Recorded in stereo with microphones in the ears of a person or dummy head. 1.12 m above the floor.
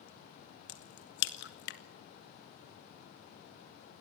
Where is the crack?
55° left (ahead or behind), 1.9 m.